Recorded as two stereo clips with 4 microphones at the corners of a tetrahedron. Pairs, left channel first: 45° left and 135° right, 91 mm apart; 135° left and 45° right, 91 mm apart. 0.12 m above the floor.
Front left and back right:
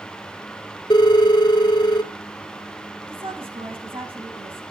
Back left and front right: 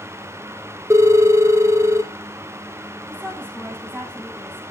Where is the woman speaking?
145° right, 8 m.